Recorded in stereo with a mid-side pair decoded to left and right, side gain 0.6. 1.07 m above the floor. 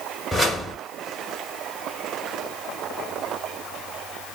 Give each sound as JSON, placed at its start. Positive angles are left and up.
{"t": 0.3, "sound": "a whoosh", "azimuth_deg": 0, "distance_m": 2.5}